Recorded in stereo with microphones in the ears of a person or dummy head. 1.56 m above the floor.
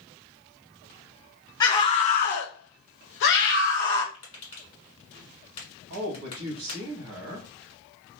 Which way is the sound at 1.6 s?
15° left (ahead or behind).